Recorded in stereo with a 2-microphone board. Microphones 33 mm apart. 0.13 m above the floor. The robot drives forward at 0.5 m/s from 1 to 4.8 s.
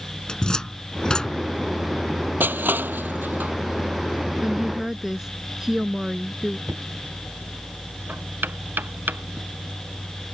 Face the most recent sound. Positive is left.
turn(degrees=-75)  # may be behind; listen again after turning